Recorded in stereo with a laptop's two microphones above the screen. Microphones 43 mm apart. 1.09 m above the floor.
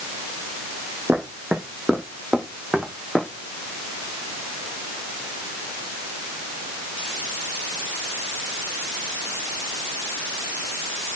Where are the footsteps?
40° right (ahead or behind), 2 m; by 3.3 s 15° right (ahead or behind), 2.5 m.